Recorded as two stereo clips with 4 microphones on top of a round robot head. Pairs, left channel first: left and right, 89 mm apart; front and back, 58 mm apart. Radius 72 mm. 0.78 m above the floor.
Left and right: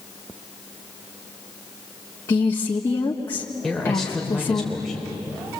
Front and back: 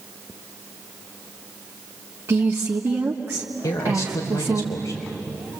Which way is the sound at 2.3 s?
135° left.